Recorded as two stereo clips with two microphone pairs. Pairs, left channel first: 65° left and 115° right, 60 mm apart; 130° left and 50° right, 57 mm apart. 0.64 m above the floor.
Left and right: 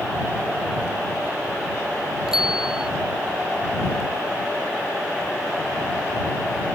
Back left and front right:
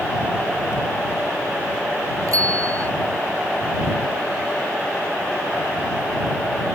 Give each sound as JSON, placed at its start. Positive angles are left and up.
{"t": 2.3, "sound": "a bicycle bell", "azimuth_deg": -35}